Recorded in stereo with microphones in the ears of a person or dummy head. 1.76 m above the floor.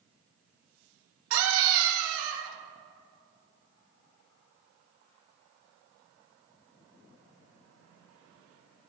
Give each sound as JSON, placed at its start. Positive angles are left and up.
{"t": 1.3, "sound": "a scream", "side_deg": -80, "distance_m": 2.5}